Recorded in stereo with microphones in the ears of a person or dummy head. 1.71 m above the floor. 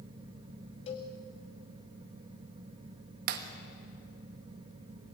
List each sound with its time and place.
0.9 s a cowbell: 30° left (ahead or behind), 2.5 m
3.3 s breaking glass: 55° right (ahead or behind), 1.5 m